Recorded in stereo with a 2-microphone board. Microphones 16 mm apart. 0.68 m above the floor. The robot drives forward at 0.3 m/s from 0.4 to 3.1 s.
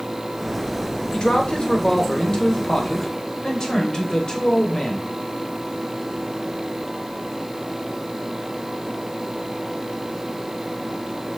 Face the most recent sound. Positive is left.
turn(degrees=50)  # may be behind; listen again after turning